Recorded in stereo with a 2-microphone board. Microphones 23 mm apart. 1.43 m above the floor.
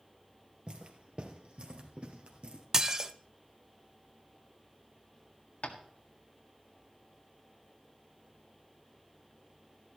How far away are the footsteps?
About 2 m.